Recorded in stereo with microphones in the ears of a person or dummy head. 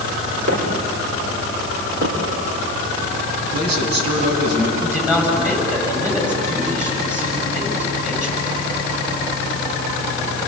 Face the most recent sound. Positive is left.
turn(degrees=-10)  # may be behind; listen again after turning